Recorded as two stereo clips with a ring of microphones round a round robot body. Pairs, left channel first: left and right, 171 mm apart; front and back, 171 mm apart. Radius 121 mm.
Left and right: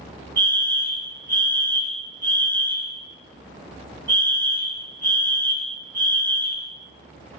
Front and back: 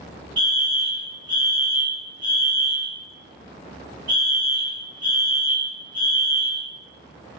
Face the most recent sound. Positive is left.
turn(degrees=155)